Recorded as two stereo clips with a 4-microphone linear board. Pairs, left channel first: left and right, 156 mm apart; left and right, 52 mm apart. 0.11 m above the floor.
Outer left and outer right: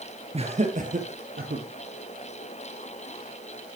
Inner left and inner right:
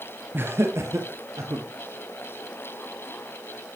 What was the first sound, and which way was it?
Laughter, 40° right (ahead or behind).